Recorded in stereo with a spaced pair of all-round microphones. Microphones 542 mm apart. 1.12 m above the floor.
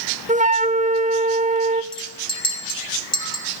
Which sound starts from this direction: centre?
A flute, at 0.3 s.